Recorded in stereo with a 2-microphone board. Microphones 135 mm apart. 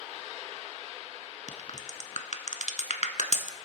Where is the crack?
55° left (ahead or behind), 0.7 m.